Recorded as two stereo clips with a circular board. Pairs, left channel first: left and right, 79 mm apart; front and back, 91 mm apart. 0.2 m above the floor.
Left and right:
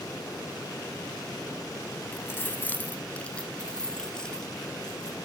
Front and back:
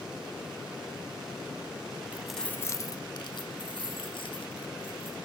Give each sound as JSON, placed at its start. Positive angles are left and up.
{"t": 2.1, "sound": "keys jangling", "azimuth_deg": 125, "distance_m": 0.8}